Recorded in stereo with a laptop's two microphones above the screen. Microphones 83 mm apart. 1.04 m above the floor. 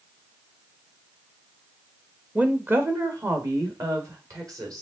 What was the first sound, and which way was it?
A woman speaking, 15° right (ahead or behind).